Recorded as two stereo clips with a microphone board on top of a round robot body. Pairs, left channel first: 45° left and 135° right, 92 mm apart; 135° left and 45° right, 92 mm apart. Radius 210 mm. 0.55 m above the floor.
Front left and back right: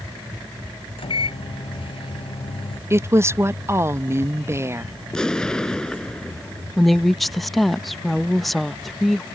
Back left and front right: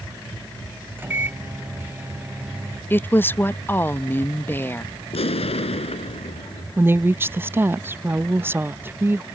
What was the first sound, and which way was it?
A microwave, 25° left.